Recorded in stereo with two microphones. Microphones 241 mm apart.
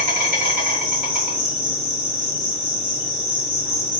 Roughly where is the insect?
Centre.